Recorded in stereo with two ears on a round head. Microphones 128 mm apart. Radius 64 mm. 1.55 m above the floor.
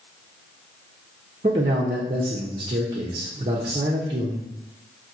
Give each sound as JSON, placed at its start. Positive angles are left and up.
{"t": 1.4, "sound": "a man speaking", "side_deg": -40, "distance_m": 0.6}